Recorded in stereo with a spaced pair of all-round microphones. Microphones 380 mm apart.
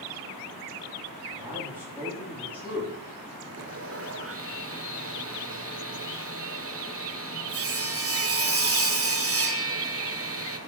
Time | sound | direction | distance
1.4 | a man speaking | 5° right (ahead or behind) | 4 m
3.6 | sawing | 35° right (ahead or behind) | 0.7 m